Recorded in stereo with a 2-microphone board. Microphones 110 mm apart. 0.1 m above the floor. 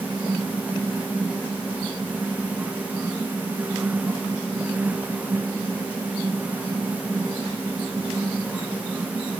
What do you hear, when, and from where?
Only background noise.